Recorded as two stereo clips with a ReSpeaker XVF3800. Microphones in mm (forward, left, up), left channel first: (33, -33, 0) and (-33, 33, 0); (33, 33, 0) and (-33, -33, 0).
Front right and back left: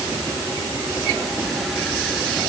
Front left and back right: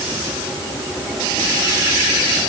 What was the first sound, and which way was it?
Only background noise.